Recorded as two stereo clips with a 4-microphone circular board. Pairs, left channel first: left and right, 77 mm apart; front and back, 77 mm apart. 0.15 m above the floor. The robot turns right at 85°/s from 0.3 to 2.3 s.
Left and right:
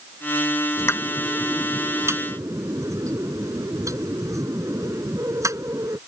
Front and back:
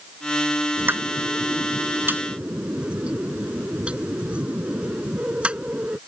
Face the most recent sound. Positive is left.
turn(degrees=-110)